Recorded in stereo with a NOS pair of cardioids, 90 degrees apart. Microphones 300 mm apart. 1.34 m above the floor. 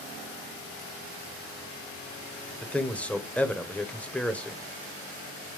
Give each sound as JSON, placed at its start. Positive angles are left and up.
{"t": 2.6, "sound": "a man speaking", "azimuth_deg": 5, "distance_m": 0.7}